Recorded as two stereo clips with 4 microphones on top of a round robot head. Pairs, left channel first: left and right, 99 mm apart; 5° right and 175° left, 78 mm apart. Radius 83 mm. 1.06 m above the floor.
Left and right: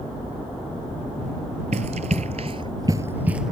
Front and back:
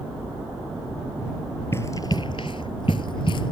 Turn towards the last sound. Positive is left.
turn(degrees=-5)